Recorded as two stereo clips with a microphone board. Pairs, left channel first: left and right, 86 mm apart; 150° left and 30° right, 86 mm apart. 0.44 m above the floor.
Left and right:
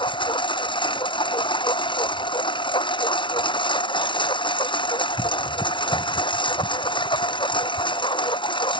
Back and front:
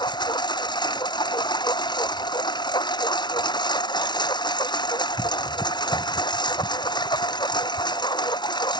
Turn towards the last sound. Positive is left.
turn(degrees=115)